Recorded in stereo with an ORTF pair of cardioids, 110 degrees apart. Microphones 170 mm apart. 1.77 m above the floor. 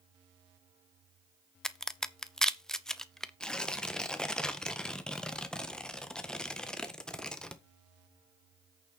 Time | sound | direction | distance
1.6 | a crack | 5° left | 0.9 m
3.4 | tearing paper | 5° left | 1.4 m